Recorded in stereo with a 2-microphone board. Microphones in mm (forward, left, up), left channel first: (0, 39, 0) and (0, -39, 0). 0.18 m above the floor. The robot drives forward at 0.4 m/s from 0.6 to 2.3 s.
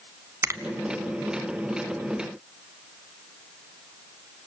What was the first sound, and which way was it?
A finger snap, 30° right (ahead or behind).